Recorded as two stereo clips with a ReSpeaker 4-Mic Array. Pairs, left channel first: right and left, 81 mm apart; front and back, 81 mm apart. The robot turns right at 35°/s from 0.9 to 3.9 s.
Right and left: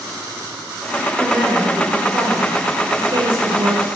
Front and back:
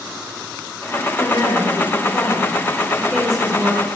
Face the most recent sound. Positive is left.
turn(degrees=110)